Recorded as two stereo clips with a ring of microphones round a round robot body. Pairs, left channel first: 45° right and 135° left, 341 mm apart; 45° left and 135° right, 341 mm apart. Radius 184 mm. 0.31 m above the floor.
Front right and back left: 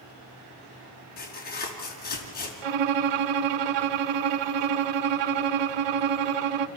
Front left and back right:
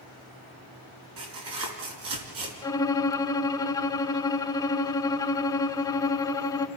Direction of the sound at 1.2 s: 110° right.